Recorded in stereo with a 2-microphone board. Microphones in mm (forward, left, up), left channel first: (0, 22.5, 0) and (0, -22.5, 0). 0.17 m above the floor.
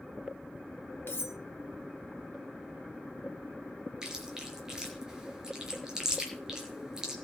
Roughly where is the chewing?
Centre.